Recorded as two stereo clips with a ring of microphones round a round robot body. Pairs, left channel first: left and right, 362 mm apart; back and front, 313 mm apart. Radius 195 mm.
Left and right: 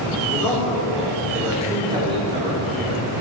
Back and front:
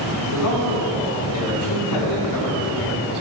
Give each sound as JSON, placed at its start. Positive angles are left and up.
{"t": 0.3, "sound": "a man speaking", "azimuth_deg": 175, "distance_m": 2.5}